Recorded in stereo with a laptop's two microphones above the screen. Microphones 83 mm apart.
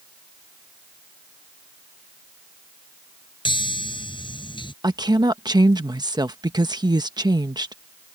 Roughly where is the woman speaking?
Right.